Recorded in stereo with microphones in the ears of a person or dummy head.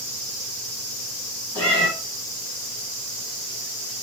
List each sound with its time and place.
1.6 s a cat meowing: 15° left (ahead or behind), 1.2 m